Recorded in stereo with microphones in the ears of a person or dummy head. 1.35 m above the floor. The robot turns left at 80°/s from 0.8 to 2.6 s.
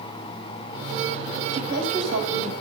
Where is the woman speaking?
60° right, 8.5 m; by 2.5 s 140° right, 8.5 m.